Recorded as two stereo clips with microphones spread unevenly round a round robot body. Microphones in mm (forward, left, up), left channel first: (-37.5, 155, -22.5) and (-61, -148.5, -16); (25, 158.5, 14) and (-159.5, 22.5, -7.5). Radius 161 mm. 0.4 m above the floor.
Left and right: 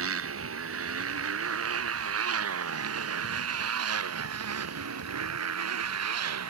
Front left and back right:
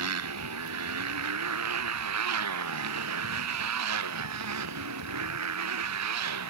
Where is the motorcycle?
140° right; by 6.5 s 130° right.